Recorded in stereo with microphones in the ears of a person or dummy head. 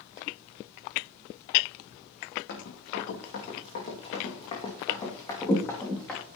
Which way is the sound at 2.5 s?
65° left (ahead or behind).